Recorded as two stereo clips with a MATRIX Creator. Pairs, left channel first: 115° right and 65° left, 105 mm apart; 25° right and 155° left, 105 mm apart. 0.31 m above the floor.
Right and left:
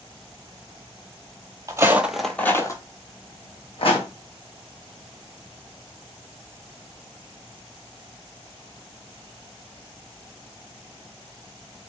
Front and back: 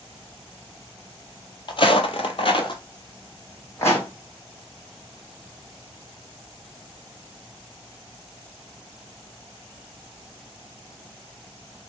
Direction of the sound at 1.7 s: 10° left.